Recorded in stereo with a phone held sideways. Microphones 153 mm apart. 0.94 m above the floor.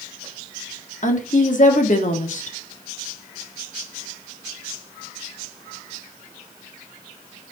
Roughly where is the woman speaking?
Left.